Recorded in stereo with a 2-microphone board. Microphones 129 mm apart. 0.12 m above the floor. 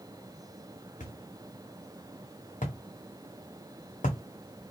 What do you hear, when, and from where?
1.0 s a thud: 85° left, 1.5 m